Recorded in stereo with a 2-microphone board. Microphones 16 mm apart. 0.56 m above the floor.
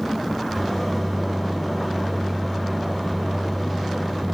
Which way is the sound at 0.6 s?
15° left (ahead or behind).